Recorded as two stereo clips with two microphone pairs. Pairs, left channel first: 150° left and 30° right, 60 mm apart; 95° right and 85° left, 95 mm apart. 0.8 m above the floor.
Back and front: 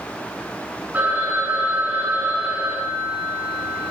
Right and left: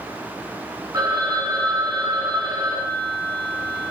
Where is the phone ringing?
35° left, 7 m.